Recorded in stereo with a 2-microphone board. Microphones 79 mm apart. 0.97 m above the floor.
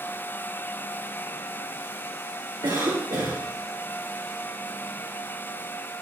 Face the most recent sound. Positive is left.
turn(degrees=-70)  # may be behind; listen again after turning